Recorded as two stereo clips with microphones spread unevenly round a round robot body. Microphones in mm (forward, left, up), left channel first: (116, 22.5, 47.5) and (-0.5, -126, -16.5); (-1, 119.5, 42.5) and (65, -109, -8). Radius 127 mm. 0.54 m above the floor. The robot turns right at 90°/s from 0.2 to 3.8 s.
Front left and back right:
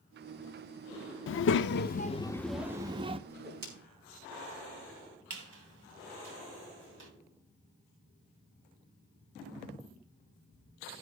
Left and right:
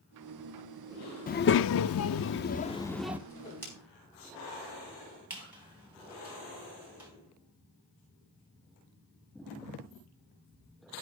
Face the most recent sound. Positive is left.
turn(degrees=-155)